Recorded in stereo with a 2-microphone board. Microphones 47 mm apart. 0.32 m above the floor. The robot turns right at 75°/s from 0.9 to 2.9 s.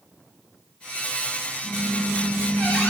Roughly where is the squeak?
Ahead.